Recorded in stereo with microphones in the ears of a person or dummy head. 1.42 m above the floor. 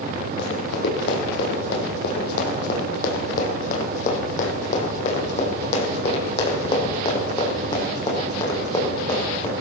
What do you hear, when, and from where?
0.4 s running footsteps: 60° left (ahead or behind), 3 m; by 9.5 s 20° left (ahead or behind), 5 m